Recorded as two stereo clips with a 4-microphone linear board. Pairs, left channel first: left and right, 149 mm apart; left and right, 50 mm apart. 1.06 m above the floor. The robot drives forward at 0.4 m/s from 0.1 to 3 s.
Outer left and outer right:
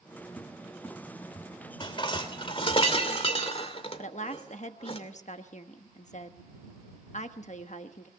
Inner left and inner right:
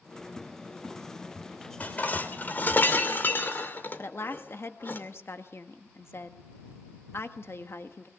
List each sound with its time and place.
0.4 s a cupboard door: 15° left (ahead or behind), 2.0 m; by 2.8 s 25° left (ahead or behind), 1.1 m
1.8 s dishes clattering: 35° left (ahead or behind), 2.5 m; by 5.0 s 40° left (ahead or behind), 2 m
4.0 s a woman speaking: 55° left (ahead or behind), 1.2 m